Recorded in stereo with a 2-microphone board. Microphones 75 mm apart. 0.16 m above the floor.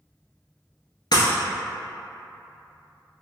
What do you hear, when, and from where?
1.1 s breaking glass: 65° left (ahead or behind), 1.0 m